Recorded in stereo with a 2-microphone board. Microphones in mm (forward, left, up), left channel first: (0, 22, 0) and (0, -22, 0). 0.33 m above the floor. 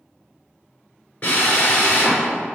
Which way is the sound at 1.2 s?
30° left (ahead or behind).